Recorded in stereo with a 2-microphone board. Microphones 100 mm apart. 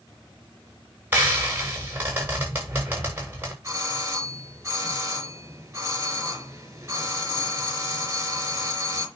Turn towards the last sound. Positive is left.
turn(degrees=-25)  # may be behind; listen again after turning